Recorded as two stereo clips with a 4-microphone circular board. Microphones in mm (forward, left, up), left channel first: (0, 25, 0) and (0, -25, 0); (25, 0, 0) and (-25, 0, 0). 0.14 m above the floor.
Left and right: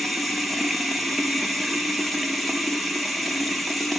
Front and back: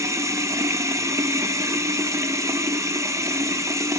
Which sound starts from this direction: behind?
Running water, at 0.0 s.